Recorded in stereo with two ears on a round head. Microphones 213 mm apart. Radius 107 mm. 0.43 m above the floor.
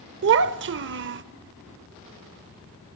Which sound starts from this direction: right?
A child speaking, at 0.2 s.